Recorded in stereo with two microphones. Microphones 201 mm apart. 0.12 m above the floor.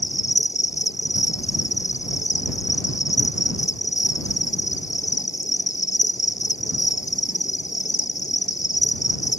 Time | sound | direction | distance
0.0 | an insect | 35° left (ahead or behind) | ?